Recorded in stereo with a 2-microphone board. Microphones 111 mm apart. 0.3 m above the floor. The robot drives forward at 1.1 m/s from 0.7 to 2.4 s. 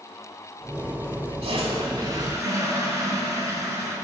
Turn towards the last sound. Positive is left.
turn(degrees=-30)  # may be behind; listen again after turning